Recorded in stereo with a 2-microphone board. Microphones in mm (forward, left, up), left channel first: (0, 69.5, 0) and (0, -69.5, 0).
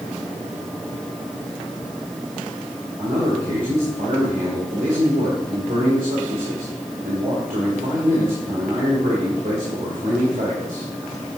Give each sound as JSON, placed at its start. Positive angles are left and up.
{"t": 3.0, "sound": "a man speaking", "side_deg": -75, "distance_m": 2.0}